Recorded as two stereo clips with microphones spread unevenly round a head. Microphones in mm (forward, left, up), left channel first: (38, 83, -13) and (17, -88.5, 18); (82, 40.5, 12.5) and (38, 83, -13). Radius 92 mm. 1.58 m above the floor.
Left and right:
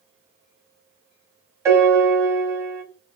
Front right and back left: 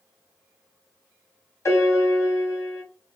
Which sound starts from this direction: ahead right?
A piano, at 1.6 s.